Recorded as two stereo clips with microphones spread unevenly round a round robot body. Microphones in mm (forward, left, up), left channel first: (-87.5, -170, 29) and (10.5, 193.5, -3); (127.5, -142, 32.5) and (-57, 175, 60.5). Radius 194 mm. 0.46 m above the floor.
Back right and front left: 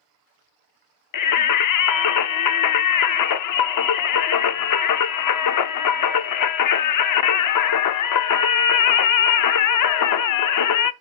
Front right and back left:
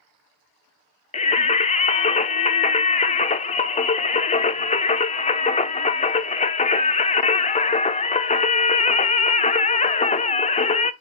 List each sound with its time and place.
1.1 s singing: 120° right, 0.5 m